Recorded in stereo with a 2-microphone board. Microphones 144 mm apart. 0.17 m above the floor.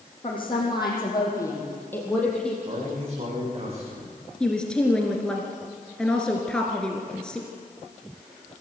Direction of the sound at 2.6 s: 45° right (ahead or behind).